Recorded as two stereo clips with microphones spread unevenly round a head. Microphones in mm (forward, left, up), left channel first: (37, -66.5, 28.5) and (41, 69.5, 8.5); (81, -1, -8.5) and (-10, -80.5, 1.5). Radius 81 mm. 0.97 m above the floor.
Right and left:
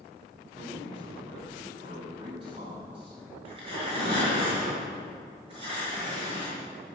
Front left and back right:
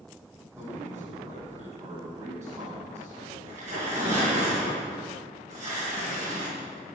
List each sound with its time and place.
0.6 s a man speaking: 145° left, 7 m
3.5 s tearing paper: 150° left, 6 m